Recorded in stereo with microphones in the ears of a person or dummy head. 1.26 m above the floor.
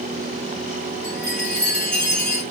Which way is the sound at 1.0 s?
5° left (ahead or behind).